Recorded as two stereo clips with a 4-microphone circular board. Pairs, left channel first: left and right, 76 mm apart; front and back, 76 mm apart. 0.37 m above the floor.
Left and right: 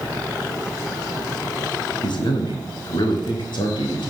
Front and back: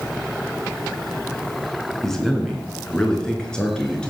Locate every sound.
2.0 s a man speaking: 85° left, 3.5 m; by 4.1 s 80° left, 4.5 m